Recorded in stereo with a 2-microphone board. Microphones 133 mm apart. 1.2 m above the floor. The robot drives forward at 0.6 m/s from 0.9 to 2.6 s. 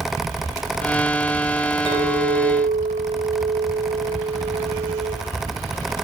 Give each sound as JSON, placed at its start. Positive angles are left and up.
{"t": 1.9, "sound": "a clink", "side_deg": -40, "distance_m": 3.0}